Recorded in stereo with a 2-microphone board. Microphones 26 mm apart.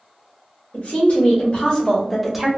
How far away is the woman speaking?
About 1.4 m.